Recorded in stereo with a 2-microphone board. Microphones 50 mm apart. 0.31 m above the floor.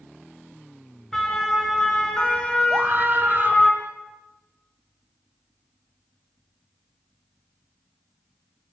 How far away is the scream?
About 1.5 m.